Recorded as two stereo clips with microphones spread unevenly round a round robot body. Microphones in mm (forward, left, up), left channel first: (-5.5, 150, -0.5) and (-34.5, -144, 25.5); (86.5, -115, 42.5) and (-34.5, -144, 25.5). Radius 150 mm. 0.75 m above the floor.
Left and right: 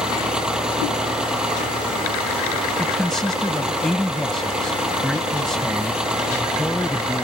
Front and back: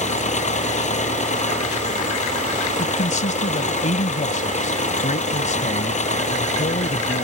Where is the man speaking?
5° right.